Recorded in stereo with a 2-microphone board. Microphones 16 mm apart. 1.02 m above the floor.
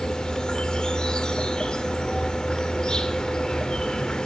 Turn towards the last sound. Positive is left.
turn(degrees=55)  # may be behind; listen again after turning